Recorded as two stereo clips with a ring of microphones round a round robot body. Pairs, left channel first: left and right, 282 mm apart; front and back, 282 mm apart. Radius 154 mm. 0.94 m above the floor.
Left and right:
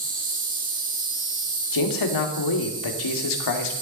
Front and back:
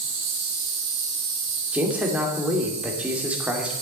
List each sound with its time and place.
0.0 s an insect: 150° right, 4 m
1.7 s a man speaking: 95° left, 2 m